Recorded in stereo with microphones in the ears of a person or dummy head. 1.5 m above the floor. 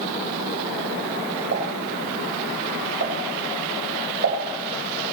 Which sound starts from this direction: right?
A pop, at 1.5 s.